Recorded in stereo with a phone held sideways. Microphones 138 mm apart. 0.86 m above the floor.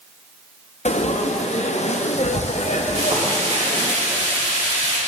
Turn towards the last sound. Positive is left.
turn(degrees=-50)  # may be behind; listen again after turning